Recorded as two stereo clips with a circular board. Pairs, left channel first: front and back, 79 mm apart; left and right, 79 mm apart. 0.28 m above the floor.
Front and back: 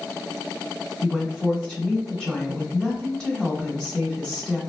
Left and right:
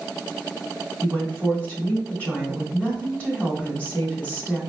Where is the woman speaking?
60° left, 1.2 m.